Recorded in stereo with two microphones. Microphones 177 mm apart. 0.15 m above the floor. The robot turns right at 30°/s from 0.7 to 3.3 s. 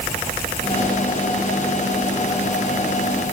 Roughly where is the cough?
I don't hear a cough.